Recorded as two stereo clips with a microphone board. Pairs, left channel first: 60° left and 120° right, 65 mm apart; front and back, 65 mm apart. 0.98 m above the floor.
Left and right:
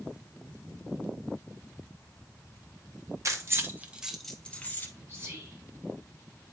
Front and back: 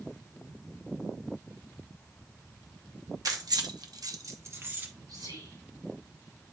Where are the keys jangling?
155° right, 1.1 m; by 4.9 s 120° left, 1.2 m.